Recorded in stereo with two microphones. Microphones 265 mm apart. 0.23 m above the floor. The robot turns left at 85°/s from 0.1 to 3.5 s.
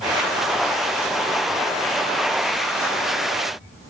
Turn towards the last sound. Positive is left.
No sound to turn to.